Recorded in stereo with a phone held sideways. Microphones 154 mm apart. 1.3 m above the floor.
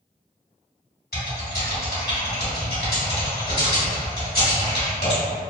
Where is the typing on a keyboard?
80° left, 1.9 m.